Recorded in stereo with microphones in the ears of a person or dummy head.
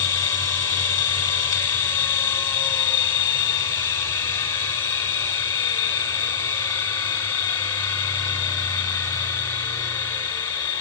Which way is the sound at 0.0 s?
15° left (ahead or behind).